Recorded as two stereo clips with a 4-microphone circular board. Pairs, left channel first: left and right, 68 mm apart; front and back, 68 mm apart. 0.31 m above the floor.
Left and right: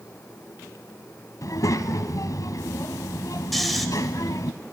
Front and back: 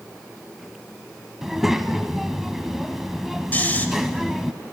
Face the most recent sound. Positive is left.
turn(degrees=5)